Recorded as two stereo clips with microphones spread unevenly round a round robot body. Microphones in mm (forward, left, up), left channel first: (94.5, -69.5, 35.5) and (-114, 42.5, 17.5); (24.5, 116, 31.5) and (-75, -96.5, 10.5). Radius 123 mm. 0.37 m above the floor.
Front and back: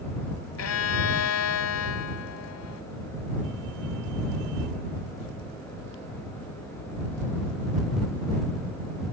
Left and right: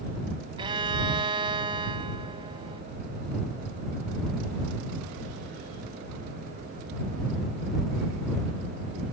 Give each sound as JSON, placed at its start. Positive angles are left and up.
{"t": 0.6, "sound": "a violin", "azimuth_deg": -45}